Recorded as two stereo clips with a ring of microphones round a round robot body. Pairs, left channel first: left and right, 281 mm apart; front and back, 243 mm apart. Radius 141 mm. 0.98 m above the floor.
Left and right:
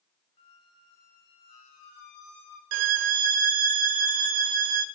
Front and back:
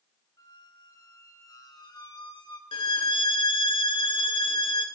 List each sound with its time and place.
0.4 s a squeak: 75° left, 2.5 m
2.7 s a violin: 75° right, 0.5 m